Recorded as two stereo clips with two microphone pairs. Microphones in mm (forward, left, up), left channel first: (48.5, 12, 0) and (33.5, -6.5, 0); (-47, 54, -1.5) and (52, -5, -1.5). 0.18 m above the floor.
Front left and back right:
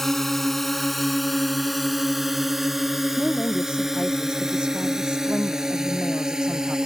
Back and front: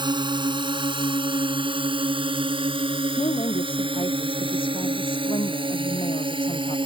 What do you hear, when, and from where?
0.0 s a drone: 15° right; by 6.9 s 65° right
3.2 s a woman speaking: 175° right